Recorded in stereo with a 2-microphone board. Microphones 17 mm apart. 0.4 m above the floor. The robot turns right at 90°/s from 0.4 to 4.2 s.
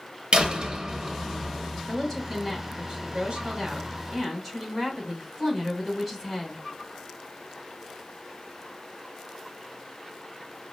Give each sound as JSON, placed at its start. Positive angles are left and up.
{"t": 0.3, "sound": "a door slam", "azimuth_deg": -70, "distance_m": 1.3}
{"t": 1.9, "sound": "a woman speaking", "azimuth_deg": 140, "distance_m": 2.5}